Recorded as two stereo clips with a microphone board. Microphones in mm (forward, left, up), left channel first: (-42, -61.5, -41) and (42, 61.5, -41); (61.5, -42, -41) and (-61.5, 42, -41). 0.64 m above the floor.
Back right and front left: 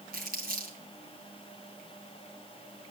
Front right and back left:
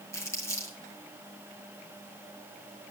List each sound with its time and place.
0.1 s crumpling: 40° left, 3.5 m